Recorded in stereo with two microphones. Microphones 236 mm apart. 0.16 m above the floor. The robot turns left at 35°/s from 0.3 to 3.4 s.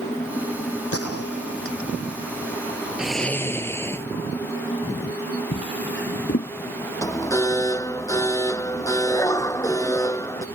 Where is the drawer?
50° left (ahead or behind).